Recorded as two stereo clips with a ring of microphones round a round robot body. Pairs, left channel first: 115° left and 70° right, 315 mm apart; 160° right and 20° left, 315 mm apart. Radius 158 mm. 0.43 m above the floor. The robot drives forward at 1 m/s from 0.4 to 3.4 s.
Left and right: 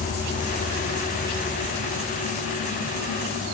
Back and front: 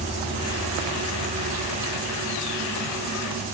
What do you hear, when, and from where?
0.0 s an insect: 155° left; by 3.5 s 175° left